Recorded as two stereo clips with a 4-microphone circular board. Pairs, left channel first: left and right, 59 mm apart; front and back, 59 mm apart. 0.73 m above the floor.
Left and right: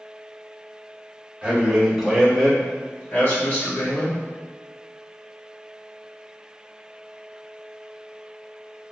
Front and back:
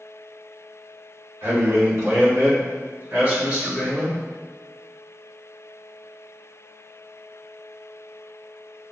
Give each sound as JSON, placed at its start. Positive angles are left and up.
{"t": 1.4, "sound": "a man speaking", "azimuth_deg": -155, "distance_m": 1.6}